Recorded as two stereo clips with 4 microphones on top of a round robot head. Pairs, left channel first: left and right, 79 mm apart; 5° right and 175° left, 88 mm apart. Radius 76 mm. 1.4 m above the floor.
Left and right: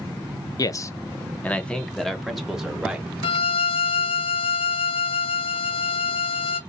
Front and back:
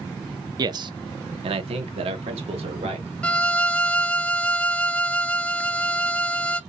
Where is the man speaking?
130° left, 0.8 m; by 3.1 s 170° right, 1.8 m.